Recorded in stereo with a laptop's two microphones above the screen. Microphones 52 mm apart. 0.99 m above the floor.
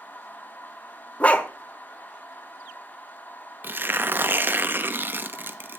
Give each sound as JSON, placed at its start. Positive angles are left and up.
{"t": 0.0, "sound": "a machine running", "side_deg": 35, "distance_m": 0.9}
{"t": 1.2, "sound": "a dog barking", "side_deg": 25, "distance_m": 1.0}
{"t": 3.6, "sound": "tearing paper", "side_deg": -40, "distance_m": 1.0}